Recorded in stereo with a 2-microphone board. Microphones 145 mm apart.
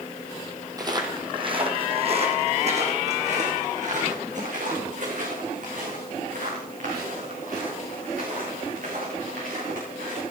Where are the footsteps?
25° right (ahead or behind), 2.0 m; by 10.2 s 70° right (ahead or behind), 8 m.